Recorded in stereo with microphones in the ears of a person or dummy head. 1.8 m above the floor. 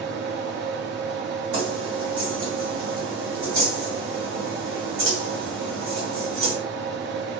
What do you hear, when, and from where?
0.0 s a fan: 60° right (ahead or behind), 0.8 m
1.5 s keys jangling: 50° right (ahead or behind), 1.8 m